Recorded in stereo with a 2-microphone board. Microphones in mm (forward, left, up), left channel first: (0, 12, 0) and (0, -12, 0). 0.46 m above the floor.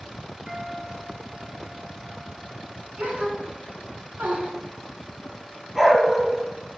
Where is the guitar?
30° right (ahead or behind), 5 m.